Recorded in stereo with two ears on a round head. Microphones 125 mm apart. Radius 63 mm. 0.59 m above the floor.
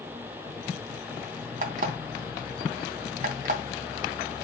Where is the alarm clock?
60° right (ahead or behind), 2.5 m.